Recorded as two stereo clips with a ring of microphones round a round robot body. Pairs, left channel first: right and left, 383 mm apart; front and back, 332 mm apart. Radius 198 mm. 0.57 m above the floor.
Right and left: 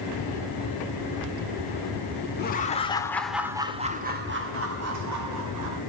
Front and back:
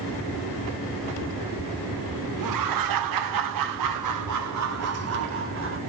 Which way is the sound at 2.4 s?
155° right.